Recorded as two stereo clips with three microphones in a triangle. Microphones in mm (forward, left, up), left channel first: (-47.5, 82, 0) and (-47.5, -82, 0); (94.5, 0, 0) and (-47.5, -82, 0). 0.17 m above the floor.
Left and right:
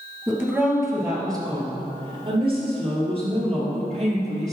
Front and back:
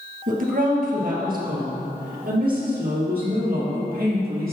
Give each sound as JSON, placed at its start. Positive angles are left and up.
{"t": 0.3, "sound": "a woman speaking", "azimuth_deg": -170, "distance_m": 3.0}